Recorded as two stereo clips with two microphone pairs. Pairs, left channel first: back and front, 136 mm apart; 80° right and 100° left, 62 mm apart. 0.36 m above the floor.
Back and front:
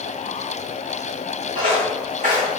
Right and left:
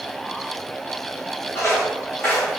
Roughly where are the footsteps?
Ahead right.